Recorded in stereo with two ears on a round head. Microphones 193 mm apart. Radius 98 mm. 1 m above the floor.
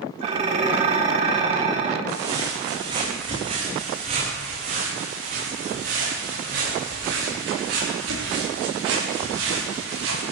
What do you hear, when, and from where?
0.2 s dishes clattering: 30° right (ahead or behind), 1.7 m
2.1 s footsteps: 20° right (ahead or behind), 5 m; by 10.3 s 65° right (ahead or behind), 8 m